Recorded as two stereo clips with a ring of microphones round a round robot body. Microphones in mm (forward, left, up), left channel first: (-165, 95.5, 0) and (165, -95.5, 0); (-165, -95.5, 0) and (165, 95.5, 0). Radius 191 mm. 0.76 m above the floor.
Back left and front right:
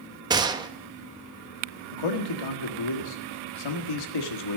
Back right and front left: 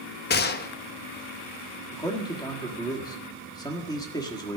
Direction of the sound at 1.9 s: 130° left.